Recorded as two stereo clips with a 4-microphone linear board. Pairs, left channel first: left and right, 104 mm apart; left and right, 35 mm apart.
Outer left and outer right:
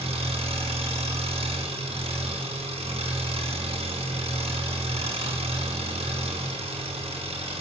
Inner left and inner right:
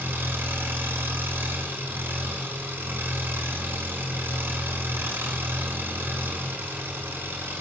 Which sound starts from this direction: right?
An engine running, at 0.0 s.